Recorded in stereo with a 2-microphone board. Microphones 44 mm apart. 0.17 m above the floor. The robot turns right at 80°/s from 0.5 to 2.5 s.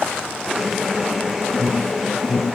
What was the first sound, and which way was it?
An alarm, 30° left (ahead or behind).